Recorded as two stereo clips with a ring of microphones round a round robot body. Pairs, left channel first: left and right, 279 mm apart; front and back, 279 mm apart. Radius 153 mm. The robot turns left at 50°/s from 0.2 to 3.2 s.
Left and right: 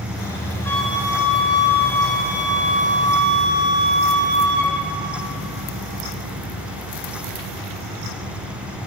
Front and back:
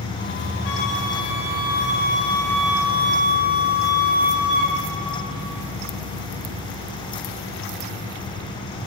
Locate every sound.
0.7 s a flute: 10° left, 1.4 m; by 4.8 s 120° right, 1.4 m